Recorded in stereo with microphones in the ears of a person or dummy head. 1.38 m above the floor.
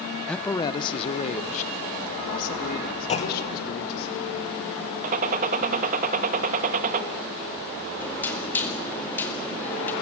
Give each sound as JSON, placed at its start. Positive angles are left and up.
{"t": 0.3, "sound": "a man speaking", "side_deg": 5, "distance_m": 0.6}
{"t": 3.1, "sound": "a clunk", "side_deg": 30, "distance_m": 1.2}
{"t": 5.0, "sound": "a gunshot", "side_deg": -40, "distance_m": 1.3}
{"t": 8.0, "sound": "knocking", "side_deg": 10, "distance_m": 2.0}